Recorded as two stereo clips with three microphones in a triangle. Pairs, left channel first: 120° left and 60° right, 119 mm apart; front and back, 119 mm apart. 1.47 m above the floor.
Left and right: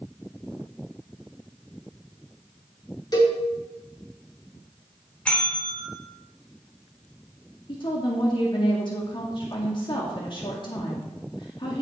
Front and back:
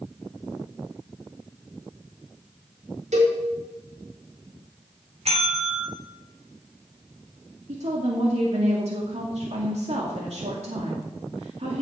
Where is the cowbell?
175° left, 4.5 m.